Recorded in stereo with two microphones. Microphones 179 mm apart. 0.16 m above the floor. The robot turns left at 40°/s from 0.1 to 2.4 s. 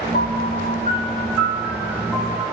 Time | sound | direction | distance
0.1 | a piano | 60° left | 0.5 m